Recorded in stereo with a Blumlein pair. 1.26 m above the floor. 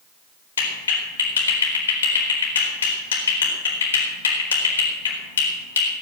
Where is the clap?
65° left, 4.5 m.